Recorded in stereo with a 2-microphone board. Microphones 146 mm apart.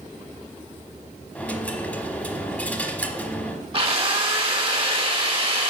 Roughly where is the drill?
Right.